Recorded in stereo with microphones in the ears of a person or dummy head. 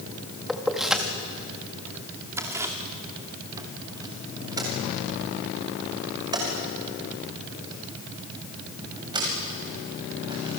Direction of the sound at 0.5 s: 5° left (ahead or behind).